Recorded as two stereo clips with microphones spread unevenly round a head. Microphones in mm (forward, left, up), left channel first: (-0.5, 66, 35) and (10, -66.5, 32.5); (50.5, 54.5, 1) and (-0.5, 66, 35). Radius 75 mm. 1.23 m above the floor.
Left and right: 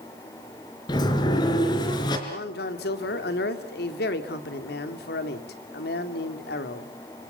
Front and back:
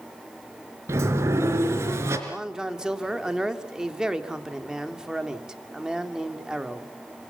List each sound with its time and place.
0.9 s a sliding door: 155° left, 3.5 m
2.3 s a man speaking: 90° left, 2.5 m